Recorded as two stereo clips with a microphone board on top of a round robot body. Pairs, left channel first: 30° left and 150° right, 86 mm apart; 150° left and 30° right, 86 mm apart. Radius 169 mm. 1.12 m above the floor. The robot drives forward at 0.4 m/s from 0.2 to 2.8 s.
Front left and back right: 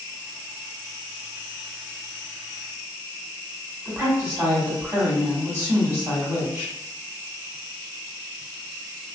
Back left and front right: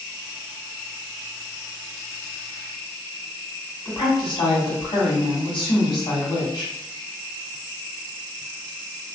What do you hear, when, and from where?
3.9 s a woman speaking: 150° left, 1.9 m